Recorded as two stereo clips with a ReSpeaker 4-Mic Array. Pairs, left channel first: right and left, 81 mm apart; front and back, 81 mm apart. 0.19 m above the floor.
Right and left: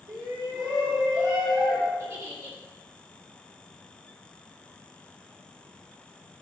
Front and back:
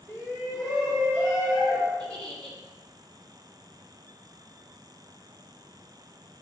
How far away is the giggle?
About 1.6 m.